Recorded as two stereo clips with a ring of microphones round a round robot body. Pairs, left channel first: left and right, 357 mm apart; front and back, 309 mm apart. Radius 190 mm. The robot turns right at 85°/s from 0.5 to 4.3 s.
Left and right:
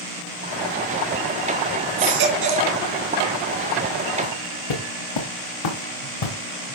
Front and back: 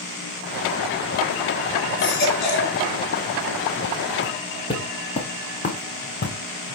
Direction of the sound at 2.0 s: 85° right.